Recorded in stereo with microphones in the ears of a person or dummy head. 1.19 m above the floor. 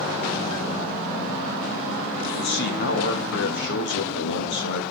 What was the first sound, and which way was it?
A man speaking, 65° left (ahead or behind).